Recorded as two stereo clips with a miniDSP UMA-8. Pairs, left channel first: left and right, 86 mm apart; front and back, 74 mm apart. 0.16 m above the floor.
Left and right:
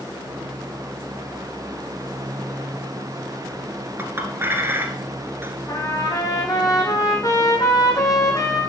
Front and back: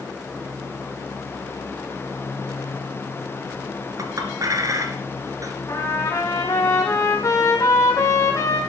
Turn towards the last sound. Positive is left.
turn(degrees=45)